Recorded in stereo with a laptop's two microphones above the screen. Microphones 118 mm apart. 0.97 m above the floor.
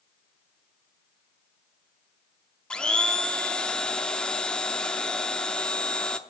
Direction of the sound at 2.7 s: 10° left (ahead or behind).